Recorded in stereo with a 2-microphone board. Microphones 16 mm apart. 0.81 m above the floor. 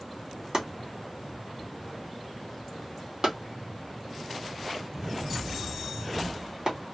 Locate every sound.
0.5 s chopping: 55° right (ahead or behind), 1.4 m